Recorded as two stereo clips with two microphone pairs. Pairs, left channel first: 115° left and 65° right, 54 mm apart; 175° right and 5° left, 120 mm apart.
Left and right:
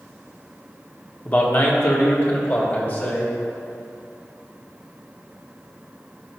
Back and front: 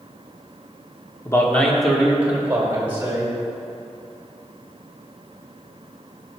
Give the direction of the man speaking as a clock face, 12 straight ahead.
7 o'clock.